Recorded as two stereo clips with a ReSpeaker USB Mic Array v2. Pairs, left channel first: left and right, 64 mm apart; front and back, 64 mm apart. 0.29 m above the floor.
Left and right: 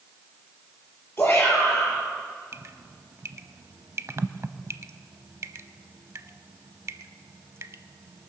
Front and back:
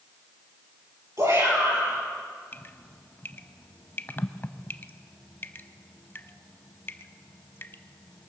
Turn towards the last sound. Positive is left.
turn(degrees=-50)